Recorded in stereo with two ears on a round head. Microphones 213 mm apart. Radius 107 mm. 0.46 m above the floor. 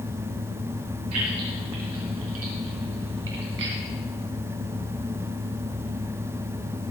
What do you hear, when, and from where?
1.1 s keys jangling: 70° right (ahead or behind), 6.5 m; by 3.8 s 50° right (ahead or behind), 3 m